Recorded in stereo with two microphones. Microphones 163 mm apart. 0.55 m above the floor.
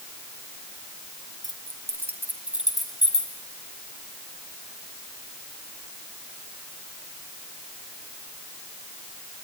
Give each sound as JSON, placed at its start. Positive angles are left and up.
{"t": 1.4, "sound": "keys jangling", "side_deg": -25, "distance_m": 2.0}